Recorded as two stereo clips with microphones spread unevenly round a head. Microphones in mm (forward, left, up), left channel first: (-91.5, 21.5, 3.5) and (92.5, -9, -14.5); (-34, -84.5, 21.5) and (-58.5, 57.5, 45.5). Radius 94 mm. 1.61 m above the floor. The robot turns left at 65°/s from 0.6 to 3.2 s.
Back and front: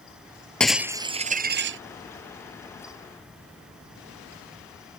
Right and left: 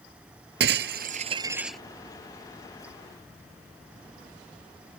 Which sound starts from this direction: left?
Breaking glass, at 0.6 s.